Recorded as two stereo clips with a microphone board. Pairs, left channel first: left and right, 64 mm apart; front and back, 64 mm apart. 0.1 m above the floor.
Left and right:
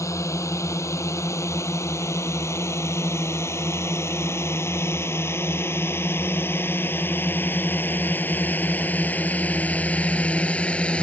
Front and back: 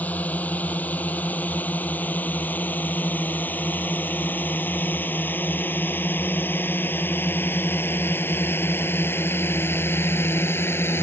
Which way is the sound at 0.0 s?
60° left.